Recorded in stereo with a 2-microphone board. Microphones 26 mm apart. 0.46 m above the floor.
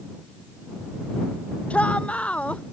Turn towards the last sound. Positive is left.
turn(degrees=55)  # may be behind; listen again after turning